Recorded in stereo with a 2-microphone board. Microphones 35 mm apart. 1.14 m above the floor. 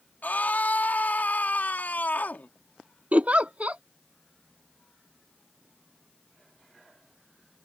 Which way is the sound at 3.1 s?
45° right (ahead or behind).